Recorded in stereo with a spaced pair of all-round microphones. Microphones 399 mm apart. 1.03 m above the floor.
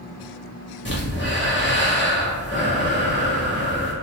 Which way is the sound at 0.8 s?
30° left (ahead or behind).